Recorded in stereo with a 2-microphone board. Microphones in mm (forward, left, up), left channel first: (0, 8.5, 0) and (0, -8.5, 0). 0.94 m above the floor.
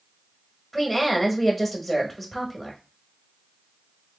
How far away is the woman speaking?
About 1.4 m.